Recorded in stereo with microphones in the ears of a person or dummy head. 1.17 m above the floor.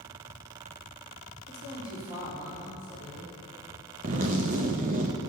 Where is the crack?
I don't hear a crack.